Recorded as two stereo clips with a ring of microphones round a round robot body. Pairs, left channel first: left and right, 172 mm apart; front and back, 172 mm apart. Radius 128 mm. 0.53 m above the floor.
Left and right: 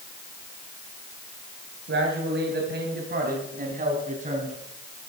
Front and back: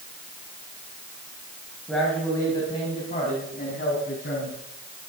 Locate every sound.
1.9 s a man speaking: 90° right, 3 m; by 4.6 s 45° right, 4.5 m